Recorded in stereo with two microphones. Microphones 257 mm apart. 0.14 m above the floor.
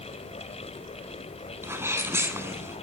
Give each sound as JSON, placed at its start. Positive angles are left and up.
{"t": 1.6, "sound": "a sneeze", "side_deg": -10, "distance_m": 1.1}